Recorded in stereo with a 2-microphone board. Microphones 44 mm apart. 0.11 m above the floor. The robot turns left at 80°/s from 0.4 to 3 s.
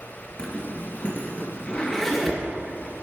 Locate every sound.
0.4 s a zipper: 25° left (ahead or behind), 2 m; by 2.4 s 10° right (ahead or behind), 2 m